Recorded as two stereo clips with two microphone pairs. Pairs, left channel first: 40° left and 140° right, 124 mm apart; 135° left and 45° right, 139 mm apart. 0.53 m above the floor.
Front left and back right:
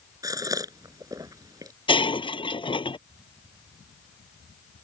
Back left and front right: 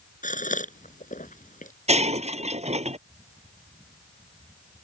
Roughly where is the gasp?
Behind.